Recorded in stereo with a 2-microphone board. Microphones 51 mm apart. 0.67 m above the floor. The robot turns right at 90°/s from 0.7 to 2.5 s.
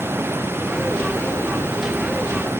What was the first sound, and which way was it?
Only background noise.